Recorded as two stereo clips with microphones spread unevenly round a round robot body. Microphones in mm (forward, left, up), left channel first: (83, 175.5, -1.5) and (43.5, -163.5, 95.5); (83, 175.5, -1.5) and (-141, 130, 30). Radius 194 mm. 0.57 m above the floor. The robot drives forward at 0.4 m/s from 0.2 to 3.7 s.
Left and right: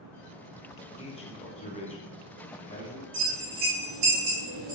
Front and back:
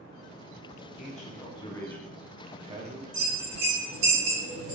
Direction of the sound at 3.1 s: 145° right.